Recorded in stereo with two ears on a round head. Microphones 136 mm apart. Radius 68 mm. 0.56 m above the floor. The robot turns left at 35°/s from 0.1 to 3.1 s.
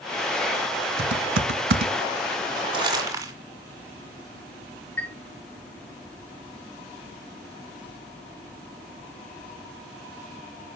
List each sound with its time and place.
1.0 s typing on a keyboard: 75° right (ahead or behind), 0.8 m; by 1.9 s 70° right (ahead or behind), 0.8 m
2.7 s crumpling: 40° right (ahead or behind), 2.5 m; by 3.3 s 25° right (ahead or behind), 2.5 m
5.0 s a chime: 15° left (ahead or behind), 0.9 m